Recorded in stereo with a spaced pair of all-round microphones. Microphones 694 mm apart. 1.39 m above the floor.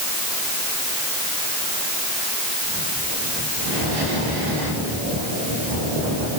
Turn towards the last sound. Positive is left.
No sound to turn to.